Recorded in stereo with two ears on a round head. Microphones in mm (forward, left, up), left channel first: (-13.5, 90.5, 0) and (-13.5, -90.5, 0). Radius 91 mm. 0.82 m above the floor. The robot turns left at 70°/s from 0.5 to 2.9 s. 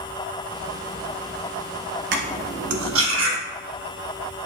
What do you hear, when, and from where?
2.1 s cutlery clinking: 50° right (ahead or behind), 0.7 m; by 3.4 s 75° right (ahead or behind), 0.7 m